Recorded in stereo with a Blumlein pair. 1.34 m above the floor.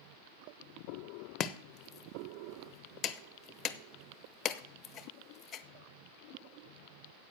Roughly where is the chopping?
Ahead left.